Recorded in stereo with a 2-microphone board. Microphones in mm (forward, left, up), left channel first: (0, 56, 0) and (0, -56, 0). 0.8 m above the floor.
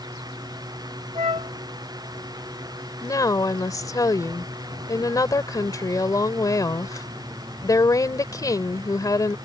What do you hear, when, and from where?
1.1 s a flute: 65° right (ahead or behind)
3.0 s a woman speaking: 30° left (ahead or behind)